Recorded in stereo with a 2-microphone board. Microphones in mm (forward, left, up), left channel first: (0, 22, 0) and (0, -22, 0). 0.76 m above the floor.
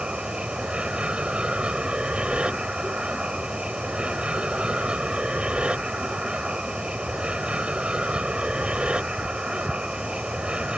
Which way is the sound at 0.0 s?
25° right (ahead or behind).